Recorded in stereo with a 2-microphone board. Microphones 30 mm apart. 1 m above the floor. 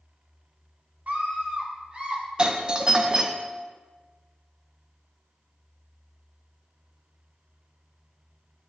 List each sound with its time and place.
1.1 s a scream: 60° right (ahead or behind), 2 m; by 2.2 s 30° right (ahead or behind), 3 m
2.4 s a doorbell: 30° right (ahead or behind), 0.7 m